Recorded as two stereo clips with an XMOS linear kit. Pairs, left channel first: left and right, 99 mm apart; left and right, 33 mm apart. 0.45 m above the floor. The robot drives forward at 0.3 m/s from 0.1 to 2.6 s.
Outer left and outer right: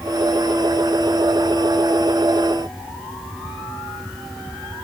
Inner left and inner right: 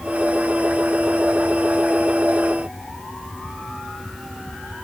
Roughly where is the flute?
I don't hear a flute.